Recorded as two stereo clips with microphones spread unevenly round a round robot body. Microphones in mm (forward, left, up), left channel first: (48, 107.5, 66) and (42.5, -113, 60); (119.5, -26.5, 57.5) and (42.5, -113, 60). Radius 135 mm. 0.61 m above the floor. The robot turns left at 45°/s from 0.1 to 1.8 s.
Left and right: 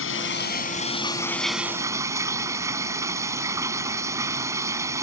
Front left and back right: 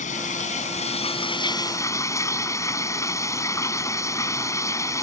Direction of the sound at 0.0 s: 60° left.